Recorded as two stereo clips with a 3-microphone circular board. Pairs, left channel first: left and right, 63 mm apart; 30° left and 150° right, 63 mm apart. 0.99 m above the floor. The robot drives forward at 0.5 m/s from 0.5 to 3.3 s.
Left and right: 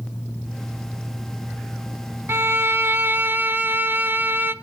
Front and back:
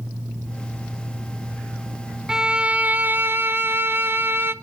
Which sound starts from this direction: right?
A violin, at 2.3 s.